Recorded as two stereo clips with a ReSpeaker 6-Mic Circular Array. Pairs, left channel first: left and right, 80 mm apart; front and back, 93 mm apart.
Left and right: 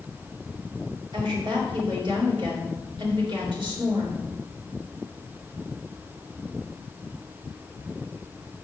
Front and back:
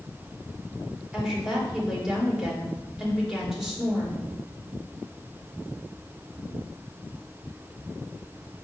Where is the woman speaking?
95° right, 3.5 m.